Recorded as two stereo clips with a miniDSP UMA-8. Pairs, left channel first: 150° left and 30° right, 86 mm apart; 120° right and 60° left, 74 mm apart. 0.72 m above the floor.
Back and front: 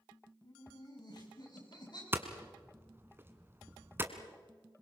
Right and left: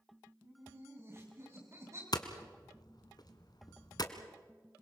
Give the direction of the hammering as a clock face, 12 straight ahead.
3 o'clock.